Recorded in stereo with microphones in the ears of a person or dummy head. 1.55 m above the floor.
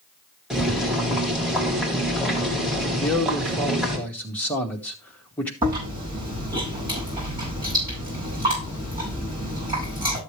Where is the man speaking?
10° left (ahead or behind), 2 m.